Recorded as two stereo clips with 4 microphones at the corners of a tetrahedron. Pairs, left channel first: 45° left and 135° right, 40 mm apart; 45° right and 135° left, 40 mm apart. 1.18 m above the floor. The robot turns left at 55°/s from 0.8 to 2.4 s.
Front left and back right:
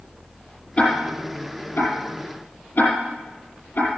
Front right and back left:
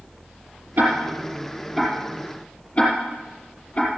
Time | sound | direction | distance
0.8 | ticking | 105° left | 5 m